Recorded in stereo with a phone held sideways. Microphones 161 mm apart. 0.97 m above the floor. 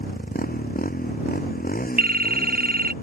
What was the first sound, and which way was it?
A motorcycle, 65° left (ahead or behind).